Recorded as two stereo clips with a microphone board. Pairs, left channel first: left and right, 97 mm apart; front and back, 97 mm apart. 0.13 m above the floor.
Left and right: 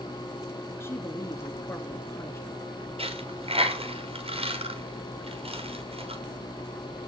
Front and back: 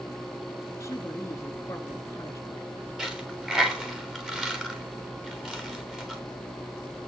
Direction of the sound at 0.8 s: 40° left.